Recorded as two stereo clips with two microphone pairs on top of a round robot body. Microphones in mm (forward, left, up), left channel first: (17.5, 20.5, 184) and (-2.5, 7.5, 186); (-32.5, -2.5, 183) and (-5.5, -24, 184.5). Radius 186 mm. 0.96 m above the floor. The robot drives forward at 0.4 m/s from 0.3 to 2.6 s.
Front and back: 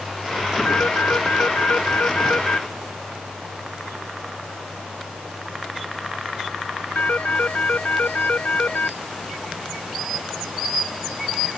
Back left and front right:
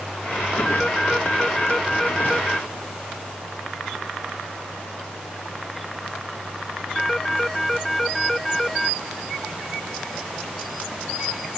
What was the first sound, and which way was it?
A phone ringing, 55° left.